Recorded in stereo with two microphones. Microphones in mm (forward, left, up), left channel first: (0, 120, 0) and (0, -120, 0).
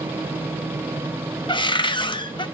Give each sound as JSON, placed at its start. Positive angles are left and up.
{"t": 1.5, "sound": "a cupboard door", "side_deg": 20, "distance_m": 0.5}